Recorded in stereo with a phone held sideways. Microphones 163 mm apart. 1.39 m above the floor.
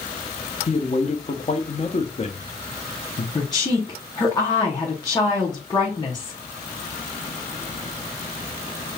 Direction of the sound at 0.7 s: 40° left (ahead or behind).